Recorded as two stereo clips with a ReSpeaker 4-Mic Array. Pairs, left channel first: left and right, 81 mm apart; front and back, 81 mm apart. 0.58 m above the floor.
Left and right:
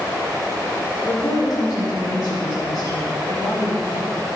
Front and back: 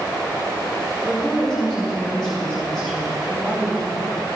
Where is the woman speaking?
75° left, 2 m.